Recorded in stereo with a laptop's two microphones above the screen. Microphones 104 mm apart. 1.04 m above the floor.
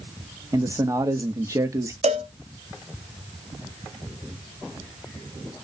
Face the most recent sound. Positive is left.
turn(degrees=-75)  # may be behind; listen again after turning